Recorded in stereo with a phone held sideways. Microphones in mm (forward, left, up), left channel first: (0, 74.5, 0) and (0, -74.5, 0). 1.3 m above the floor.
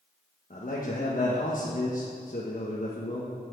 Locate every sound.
0.5 s a man speaking: 60° left (ahead or behind), 1.4 m